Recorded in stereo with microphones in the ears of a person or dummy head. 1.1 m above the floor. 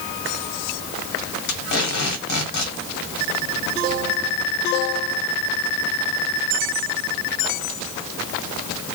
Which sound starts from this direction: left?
Tape being pulled, at 1.5 s.